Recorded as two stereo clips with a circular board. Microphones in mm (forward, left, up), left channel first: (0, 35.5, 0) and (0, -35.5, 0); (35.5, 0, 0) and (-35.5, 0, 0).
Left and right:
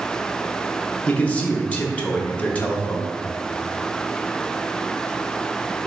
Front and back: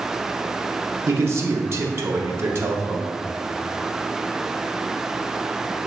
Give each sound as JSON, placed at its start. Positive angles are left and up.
{"t": 1.1, "sound": "a man speaking", "azimuth_deg": 155, "distance_m": 0.5}